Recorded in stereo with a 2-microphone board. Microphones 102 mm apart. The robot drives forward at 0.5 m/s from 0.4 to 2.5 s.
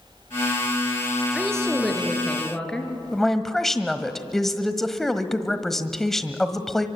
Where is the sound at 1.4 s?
5° left (ahead or behind), 4.5 m.